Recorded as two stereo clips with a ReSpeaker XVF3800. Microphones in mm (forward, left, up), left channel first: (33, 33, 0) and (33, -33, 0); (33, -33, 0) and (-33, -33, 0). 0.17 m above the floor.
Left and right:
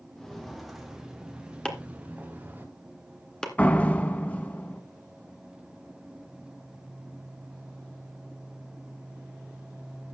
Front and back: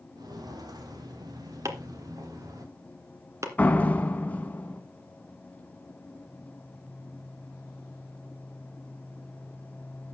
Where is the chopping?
165° left, 2 m.